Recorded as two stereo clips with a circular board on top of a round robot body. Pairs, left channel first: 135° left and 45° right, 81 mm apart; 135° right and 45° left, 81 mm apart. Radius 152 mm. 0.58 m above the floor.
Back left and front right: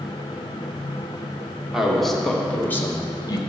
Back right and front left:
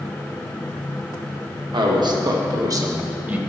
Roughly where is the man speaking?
Ahead left.